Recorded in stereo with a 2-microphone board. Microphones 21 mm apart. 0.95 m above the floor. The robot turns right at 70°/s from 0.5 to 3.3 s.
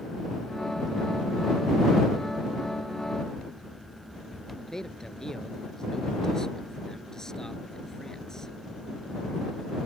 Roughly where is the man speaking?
Left.